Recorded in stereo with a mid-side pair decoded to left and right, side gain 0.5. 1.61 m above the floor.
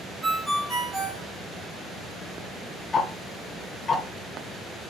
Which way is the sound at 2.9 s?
30° left.